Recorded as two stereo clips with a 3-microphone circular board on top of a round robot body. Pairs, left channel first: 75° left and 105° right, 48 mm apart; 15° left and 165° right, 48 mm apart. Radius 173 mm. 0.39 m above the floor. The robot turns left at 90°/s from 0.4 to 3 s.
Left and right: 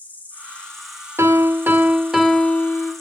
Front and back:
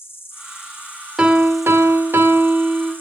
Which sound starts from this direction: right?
A piano, at 1.2 s.